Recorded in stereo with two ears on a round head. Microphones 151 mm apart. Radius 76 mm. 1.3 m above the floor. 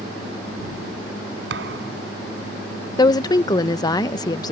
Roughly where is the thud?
Right.